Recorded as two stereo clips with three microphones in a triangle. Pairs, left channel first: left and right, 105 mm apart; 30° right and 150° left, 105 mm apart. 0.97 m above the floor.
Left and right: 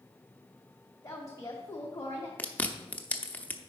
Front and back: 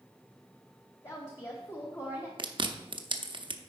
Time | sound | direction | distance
1.0 | a woman speaking | 25° left | 1.0 m
2.4 | chewing | 160° left | 0.6 m